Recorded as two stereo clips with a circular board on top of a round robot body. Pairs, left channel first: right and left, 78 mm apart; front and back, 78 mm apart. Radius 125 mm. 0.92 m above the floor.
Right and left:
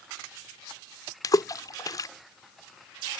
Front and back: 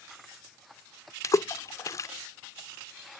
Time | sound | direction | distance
1.2 | a splash | 45° right | ?